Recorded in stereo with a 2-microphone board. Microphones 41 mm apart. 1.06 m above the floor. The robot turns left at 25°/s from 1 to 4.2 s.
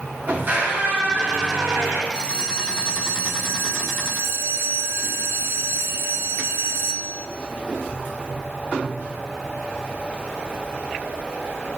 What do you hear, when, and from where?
0.3 s a squeak: 45° right (ahead or behind), 1.8 m; by 2.0 s 75° right (ahead or behind), 1.8 m
2.1 s a bell: 25° right, 0.6 m; by 7.3 s 80° right, 0.6 m